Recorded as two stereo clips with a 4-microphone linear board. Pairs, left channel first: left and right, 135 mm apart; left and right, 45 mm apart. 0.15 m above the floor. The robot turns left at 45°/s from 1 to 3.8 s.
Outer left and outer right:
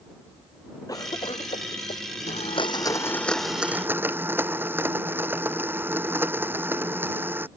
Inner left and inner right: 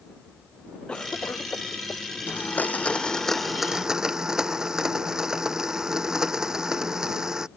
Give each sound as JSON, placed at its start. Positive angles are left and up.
{"t": 0.9, "sound": "a cough", "side_deg": 25}
{"t": 2.3, "sound": "a blender", "azimuth_deg": 55}